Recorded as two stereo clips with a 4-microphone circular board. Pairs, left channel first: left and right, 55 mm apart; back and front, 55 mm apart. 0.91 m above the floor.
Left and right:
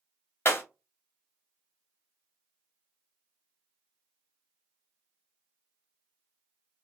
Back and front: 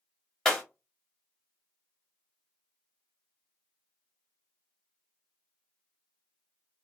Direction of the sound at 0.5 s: 100° left.